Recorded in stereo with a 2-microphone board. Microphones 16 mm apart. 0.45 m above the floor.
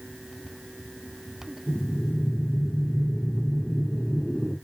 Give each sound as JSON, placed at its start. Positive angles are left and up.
{"t": 1.7, "sound": "breathing", "side_deg": 30, "distance_m": 1.4}